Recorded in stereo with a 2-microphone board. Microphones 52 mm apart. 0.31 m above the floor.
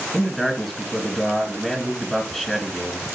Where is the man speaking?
5° right (ahead or behind), 2 m.